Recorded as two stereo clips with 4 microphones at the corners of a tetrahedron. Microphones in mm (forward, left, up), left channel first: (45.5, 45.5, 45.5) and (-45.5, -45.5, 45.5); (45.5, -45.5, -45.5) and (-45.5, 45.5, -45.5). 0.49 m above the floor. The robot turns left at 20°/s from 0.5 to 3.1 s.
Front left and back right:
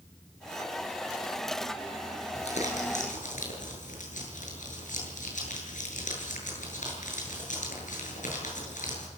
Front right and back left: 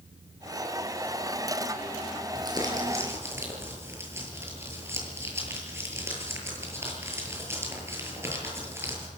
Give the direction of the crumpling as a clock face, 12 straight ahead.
9 o'clock.